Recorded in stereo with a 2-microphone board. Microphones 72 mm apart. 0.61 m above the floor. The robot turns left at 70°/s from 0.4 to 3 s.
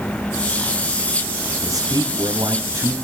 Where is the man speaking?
55° right, 3 m; by 3.0 s 150° right, 3 m.